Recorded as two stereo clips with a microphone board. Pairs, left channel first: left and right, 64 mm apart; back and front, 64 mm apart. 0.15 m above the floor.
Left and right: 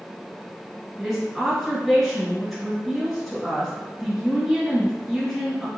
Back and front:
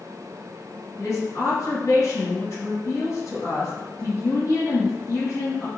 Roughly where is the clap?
I don't hear a clap.